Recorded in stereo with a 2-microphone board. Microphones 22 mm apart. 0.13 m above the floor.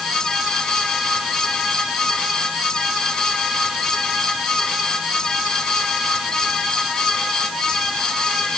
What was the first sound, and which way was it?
Only background noise.